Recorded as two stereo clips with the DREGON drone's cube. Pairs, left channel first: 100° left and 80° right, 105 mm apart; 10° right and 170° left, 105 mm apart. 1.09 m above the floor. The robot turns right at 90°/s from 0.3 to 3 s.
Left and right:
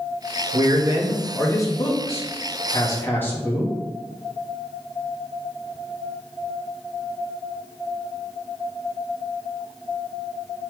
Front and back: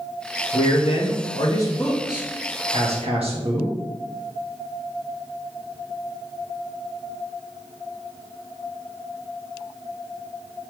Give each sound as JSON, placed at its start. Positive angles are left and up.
{"t": 0.5, "sound": "a man speaking", "azimuth_deg": -55, "distance_m": 1.8}